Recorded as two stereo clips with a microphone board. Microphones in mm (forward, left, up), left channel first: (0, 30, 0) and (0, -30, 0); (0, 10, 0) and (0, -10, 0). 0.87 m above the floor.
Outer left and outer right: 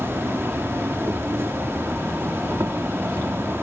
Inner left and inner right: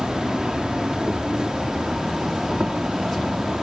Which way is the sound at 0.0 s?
40° right (ahead or behind).